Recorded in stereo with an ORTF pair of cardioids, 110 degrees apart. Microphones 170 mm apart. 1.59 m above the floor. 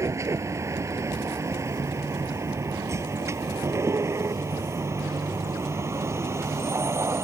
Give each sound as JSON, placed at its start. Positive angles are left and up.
{"t": 0.0, "sound": "a vehicle", "azimuth_deg": -15}